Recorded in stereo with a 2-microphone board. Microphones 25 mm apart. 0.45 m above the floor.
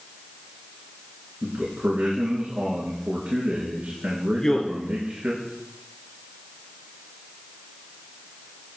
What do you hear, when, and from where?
1.4 s a man speaking: 70° right (ahead or behind), 4.5 m
4.3 s a man speaking: 20° left (ahead or behind), 1.4 m